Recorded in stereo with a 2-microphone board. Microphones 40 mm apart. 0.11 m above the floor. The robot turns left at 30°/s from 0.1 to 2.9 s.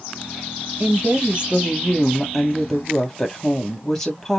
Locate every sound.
0.8 s a woman speaking: 135° right, 2.5 m; by 4.4 s 165° left, 2.5 m